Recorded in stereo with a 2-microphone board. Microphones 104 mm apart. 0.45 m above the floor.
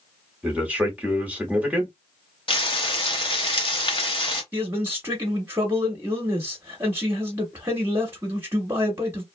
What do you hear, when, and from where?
0.4 s a man speaking: 15° right (ahead or behind), 1.1 m
2.5 s frying: 55° left (ahead or behind), 0.9 m
4.5 s a man speaking: 20° right (ahead or behind), 0.9 m